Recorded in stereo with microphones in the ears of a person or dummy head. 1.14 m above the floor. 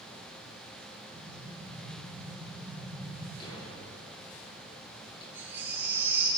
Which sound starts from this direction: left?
A thud, at 3.4 s.